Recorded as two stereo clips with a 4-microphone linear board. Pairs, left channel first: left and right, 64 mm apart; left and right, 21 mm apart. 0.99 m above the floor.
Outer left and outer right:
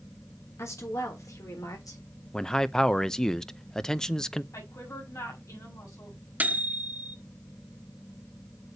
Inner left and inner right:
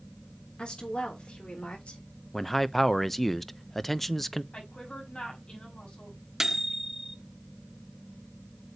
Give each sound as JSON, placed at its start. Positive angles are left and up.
{"t": 0.6, "sound": "a woman speaking", "side_deg": 45, "distance_m": 3.5}
{"t": 2.3, "sound": "a man speaking", "side_deg": 10, "distance_m": 0.5}
{"t": 4.5, "sound": "a woman speaking", "side_deg": 55, "distance_m": 5.5}
{"t": 6.4, "sound": "a microwave", "side_deg": -25, "distance_m": 0.7}